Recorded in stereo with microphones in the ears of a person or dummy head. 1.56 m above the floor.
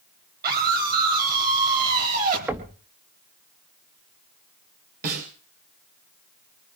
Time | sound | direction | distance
0.4 | a scream | 55° right (ahead or behind) | 10 m
2.5 | knocking | 5° right (ahead or behind) | 0.9 m
5.0 | a snare drum | 55° right (ahead or behind) | 7 m